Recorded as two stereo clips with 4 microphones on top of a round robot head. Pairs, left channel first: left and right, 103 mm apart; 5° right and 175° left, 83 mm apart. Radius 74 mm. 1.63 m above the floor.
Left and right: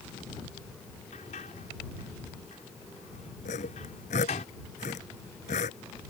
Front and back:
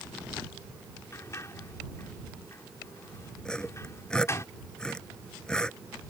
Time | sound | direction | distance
1.1 | a sliding door | 50° left | ?
3.5 | sawing | 75° left | ?